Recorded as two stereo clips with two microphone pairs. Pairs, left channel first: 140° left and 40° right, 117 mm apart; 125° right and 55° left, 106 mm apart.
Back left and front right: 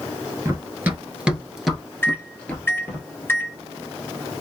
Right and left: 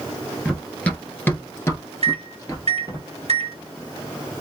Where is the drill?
No drill in this recording.